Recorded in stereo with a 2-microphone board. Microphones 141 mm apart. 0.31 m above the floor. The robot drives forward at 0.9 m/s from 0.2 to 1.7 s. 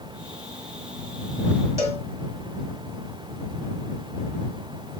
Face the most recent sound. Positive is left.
turn(degrees=-20)  # may be behind; listen again after turning